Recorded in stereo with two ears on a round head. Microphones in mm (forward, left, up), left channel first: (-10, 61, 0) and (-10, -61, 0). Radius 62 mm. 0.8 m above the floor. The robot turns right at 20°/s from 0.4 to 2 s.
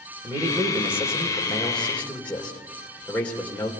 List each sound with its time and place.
0.2 s a man speaking: 20° right, 3 m; by 3.7 s 10° left, 3 m